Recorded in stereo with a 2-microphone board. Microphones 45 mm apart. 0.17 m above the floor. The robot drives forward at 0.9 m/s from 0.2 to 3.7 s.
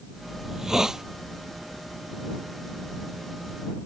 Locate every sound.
0.4 s a hiss: 10° right (ahead or behind)